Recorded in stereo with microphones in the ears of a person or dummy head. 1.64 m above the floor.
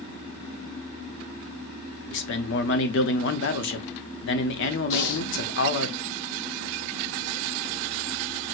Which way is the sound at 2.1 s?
65° left (ahead or behind).